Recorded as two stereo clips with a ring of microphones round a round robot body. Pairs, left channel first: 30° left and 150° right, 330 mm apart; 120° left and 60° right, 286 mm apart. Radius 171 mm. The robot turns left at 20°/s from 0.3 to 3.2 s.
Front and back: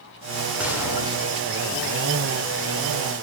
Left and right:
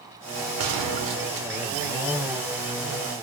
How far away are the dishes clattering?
No dishes clattering in this recording.